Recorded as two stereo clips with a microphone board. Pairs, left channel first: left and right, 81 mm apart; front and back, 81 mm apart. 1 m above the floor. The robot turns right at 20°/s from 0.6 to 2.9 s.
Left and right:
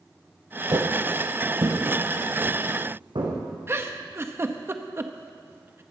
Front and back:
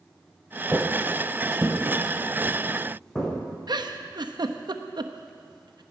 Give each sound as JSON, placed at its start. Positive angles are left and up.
{"t": 0.7, "sound": "footsteps", "azimuth_deg": -110, "distance_m": 1.6}
{"t": 3.7, "sound": "a giggle", "azimuth_deg": -150, "distance_m": 0.8}